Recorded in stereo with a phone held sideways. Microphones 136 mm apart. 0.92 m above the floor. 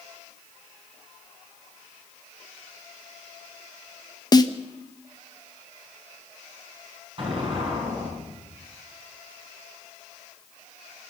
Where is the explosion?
40° right (ahead or behind), 6 m.